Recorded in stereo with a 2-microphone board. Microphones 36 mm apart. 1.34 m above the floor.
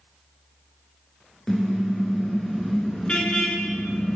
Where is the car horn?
15° left (ahead or behind), 7.5 m; by 4.2 s 30° left (ahead or behind), 6.5 m.